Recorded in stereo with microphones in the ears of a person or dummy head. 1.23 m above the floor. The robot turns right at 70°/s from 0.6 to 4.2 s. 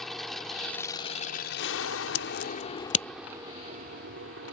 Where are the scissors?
75° left (ahead or behind); by 3.0 s 30° left (ahead or behind).